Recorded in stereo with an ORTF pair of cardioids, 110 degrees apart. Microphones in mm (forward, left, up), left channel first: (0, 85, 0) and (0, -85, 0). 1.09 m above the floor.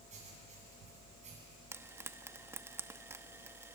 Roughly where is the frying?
Ahead.